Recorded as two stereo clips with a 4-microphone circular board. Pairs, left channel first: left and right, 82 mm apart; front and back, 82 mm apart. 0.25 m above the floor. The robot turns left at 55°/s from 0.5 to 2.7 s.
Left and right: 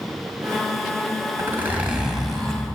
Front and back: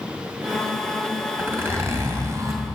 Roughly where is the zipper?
Behind right.